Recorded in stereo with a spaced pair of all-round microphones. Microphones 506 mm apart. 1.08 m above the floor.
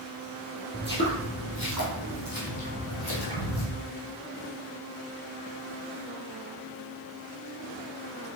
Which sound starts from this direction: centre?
Footsteps, at 0.7 s.